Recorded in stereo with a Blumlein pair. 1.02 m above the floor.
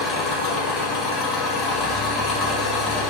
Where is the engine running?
25° left, 0.8 m.